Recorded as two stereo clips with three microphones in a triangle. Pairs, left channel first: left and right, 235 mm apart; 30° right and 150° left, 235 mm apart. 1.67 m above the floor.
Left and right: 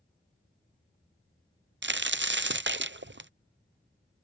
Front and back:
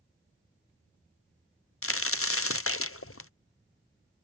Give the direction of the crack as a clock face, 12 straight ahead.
2 o'clock.